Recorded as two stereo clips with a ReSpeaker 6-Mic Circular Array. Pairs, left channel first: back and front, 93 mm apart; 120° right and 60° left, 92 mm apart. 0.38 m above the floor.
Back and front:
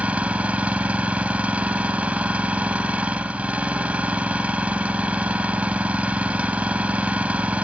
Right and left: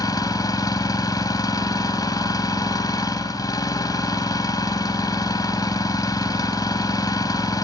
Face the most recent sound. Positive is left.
turn(degrees=-75)